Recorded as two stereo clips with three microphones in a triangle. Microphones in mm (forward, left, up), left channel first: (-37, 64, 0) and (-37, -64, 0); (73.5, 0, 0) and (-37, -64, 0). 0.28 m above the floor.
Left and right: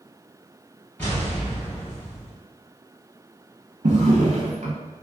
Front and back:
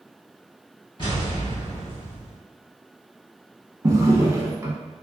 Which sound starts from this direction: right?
A drawer, at 3.8 s.